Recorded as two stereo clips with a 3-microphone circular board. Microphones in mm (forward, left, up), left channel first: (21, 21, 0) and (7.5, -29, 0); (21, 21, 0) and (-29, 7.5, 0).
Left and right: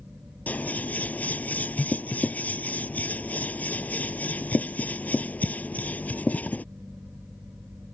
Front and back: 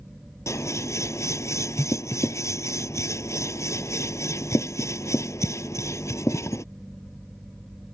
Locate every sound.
0.5 s scissors: 15° left